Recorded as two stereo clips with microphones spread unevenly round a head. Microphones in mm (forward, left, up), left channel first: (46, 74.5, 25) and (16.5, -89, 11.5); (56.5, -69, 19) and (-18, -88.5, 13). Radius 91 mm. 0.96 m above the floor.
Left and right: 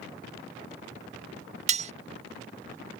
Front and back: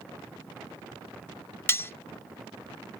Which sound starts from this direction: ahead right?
Cutlery clinking, at 1.7 s.